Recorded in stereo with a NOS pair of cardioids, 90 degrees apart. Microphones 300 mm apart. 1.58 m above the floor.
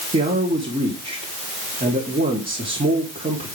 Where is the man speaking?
25° right, 4 m.